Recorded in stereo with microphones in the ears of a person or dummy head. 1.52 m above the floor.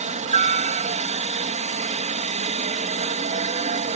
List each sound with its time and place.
0.0 s a helicopter: 25° right (ahead or behind)